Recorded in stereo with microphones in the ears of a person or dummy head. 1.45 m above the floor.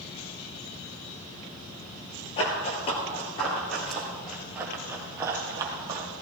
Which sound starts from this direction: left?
Running footsteps, at 2.4 s.